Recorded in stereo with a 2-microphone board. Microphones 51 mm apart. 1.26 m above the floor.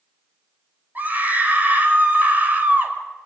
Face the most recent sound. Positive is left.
turn(degrees=-35)  # may be behind; listen again after turning